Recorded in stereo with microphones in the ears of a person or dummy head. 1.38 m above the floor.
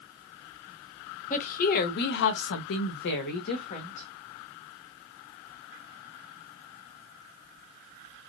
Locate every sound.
1.3 s a woman speaking: 40° left (ahead or behind), 1.0 m; by 4.1 s 35° left (ahead or behind), 1.1 m